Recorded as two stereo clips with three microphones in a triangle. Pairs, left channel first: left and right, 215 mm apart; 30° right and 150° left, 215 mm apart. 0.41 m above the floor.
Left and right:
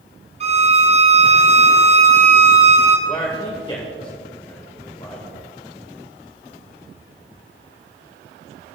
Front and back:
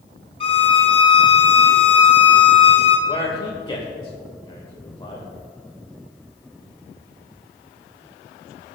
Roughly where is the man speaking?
Ahead left.